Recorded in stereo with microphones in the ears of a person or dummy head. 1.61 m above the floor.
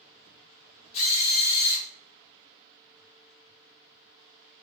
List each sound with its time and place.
0.9 s a drill: 35° left (ahead or behind), 1.4 m